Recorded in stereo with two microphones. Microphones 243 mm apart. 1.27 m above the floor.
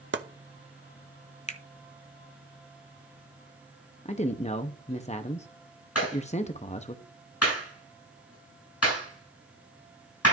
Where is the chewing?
I don't hear chewing.